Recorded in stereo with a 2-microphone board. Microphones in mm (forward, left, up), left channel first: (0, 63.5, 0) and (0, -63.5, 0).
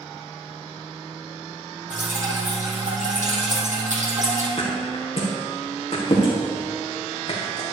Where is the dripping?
75° right (ahead or behind), 3.5 m.